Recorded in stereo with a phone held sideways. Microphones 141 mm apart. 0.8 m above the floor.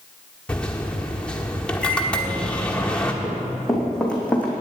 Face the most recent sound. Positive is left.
turn(degrees=10)  # may be behind; listen again after turning